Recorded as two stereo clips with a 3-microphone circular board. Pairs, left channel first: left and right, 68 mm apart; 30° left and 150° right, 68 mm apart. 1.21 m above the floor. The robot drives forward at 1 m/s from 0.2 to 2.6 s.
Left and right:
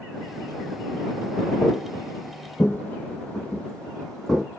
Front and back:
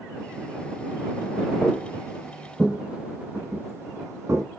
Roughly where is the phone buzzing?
No phone buzzing in this recording.